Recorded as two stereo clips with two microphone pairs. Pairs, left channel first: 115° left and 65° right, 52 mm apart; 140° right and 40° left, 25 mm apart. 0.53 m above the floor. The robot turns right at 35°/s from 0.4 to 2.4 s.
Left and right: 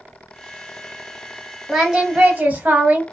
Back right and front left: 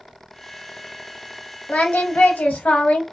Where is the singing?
150° right, 0.7 m; by 3.0 s 125° right, 0.7 m.